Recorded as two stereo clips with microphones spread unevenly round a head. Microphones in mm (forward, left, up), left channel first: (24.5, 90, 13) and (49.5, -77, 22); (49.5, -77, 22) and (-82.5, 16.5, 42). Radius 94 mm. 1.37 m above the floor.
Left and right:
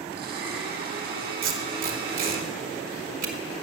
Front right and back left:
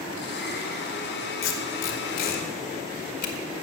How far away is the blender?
About 1.8 m.